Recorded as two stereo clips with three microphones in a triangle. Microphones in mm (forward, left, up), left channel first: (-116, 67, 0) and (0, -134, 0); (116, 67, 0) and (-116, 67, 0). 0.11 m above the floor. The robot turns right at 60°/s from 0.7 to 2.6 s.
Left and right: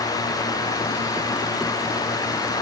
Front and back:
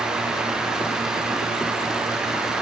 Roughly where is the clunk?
No clunk in this recording.